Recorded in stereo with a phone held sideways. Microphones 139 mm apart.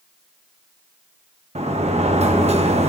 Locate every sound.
1.6 s a sliding door: 50° right (ahead or behind), 1.1 m